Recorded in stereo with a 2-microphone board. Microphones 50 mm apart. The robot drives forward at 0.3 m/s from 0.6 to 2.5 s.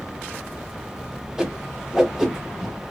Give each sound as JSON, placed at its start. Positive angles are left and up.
{"t": 1.4, "sound": "a whoosh", "side_deg": -10, "distance_m": 0.8}